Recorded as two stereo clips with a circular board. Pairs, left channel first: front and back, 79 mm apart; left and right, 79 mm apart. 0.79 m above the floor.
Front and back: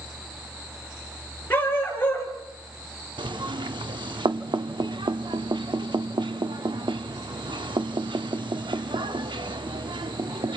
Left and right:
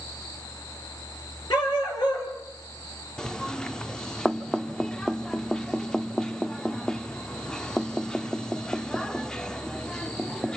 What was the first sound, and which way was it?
A dog barking, 65° left.